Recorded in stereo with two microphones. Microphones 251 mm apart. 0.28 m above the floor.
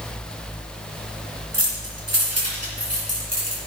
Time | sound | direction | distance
1.5 | keys jangling | 70° right (ahead or behind) | 3.5 m